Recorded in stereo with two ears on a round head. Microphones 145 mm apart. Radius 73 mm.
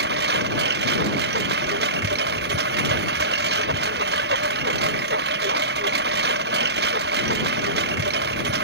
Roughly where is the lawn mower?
Right.